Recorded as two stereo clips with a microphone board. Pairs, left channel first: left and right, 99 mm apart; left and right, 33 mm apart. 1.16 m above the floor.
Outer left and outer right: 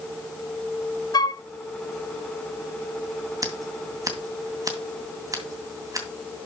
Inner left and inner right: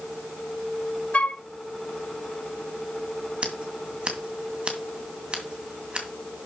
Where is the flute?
45° left (ahead or behind), 0.6 m.